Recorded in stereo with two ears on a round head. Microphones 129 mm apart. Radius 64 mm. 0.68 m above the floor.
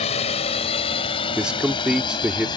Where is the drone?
45° left (ahead or behind); by 2.6 s 30° left (ahead or behind).